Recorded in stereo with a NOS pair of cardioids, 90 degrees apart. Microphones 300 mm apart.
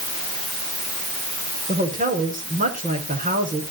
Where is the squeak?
I don't hear a squeak.